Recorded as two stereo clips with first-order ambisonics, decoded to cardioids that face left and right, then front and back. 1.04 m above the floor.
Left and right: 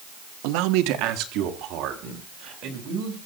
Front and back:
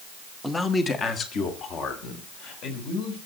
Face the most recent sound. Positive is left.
turn(degrees=-45)